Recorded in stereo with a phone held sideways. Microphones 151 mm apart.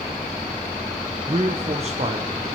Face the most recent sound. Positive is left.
turn(degrees=-45)  # may be behind; listen again after turning